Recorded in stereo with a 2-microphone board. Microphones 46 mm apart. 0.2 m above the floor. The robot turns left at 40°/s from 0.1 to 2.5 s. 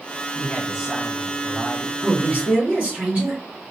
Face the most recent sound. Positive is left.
turn(degrees=-30)  # may be behind; listen again after turning